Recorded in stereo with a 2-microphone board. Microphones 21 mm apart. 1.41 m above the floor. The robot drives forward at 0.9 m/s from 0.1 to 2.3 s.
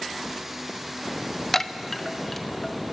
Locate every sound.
1.5 s a chime: 20° left (ahead or behind), 0.7 m; by 2.8 s 10° left (ahead or behind), 1.3 m